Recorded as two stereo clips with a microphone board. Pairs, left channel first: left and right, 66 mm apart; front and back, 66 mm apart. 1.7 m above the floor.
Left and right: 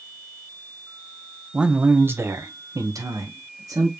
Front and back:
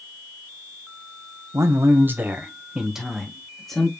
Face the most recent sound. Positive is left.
turn(degrees=-80)